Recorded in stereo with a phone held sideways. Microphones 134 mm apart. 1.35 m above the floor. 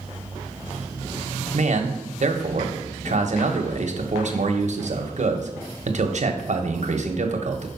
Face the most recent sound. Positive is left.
turn(degrees=-60)  # may be behind; listen again after turning